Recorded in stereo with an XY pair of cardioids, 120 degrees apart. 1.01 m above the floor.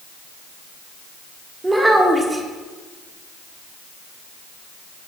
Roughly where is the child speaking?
Ahead.